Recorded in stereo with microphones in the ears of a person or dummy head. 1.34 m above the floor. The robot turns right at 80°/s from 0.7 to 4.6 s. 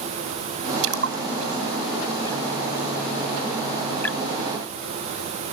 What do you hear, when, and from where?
0.8 s a splash: 90° right; by 4.2 s centre (ahead or behind)